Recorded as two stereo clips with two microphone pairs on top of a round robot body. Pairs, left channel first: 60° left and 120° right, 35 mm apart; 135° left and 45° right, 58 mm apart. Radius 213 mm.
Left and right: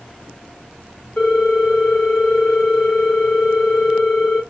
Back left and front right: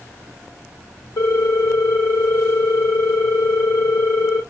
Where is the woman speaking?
I don't hear a woman speaking.